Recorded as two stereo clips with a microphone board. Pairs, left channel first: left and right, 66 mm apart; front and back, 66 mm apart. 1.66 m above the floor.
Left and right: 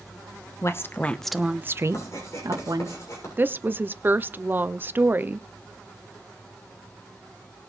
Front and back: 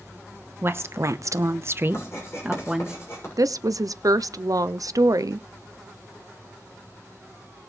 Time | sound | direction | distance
0.6 | a woman speaking | 130° left | 1.2 m
1.9 | writing | 45° left | 6.5 m
3.4 | a woman speaking | 150° right | 0.6 m